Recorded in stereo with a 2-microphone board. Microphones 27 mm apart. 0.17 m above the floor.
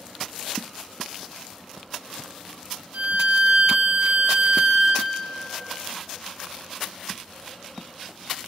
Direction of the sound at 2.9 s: 75° right (ahead or behind).